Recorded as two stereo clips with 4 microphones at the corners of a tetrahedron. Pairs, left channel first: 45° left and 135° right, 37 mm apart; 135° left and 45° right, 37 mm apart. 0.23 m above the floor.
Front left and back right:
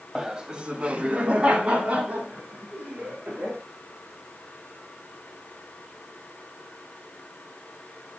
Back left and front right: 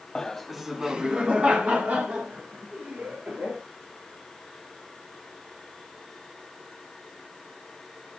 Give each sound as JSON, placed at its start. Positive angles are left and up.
{"t": 0.1, "sound": "laughter", "azimuth_deg": 180, "distance_m": 1.1}